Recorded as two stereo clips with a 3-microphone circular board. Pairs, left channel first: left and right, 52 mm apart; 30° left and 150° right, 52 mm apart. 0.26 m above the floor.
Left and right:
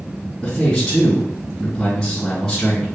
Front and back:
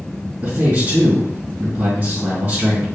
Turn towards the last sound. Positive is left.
turn(degrees=170)